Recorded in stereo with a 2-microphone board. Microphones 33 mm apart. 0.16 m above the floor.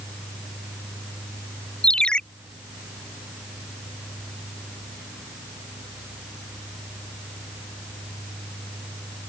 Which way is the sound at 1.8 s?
30° left (ahead or behind).